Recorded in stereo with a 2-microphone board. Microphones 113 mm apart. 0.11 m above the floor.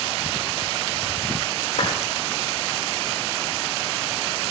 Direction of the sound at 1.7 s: 75° left (ahead or behind).